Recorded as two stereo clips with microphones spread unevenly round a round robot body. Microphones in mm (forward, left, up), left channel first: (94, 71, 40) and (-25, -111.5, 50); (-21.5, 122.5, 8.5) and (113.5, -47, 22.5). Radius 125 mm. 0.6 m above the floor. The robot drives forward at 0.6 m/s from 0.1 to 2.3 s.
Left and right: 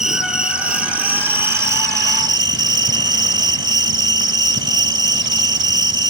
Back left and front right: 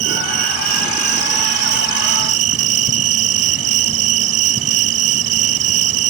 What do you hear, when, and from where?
0.0 s an insect: 35° right; by 6.1 s 50° right